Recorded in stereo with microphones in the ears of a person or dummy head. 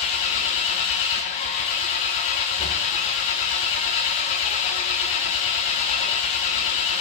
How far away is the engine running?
About 0.9 m.